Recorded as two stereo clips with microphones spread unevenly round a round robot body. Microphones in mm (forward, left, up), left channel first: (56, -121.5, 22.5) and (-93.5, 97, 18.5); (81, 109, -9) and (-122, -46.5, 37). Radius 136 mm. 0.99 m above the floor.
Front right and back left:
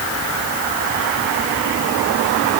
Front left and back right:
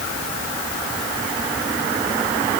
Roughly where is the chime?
I don't hear a chime.